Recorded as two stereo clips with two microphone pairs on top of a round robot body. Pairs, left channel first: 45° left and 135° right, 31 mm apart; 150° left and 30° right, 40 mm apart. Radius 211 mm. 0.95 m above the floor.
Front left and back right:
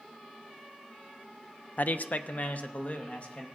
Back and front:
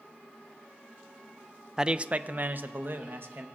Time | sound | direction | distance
1.8 | a man speaking | 40° left | 0.6 m